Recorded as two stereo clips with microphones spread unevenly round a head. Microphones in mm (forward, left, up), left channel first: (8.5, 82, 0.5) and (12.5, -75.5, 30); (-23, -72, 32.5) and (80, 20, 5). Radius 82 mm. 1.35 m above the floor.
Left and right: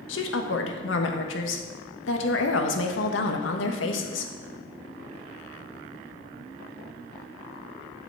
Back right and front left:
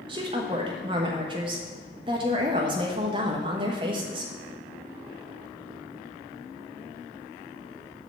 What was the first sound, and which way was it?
A woman speaking, 105° left.